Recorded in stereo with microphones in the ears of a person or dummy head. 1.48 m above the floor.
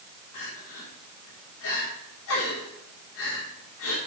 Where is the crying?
70° left (ahead or behind), 3.5 m.